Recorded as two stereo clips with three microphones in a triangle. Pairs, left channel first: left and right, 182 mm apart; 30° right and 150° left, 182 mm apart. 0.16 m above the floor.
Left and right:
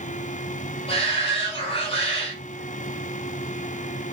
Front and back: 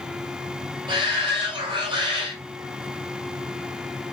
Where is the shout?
115° left, 1.4 m.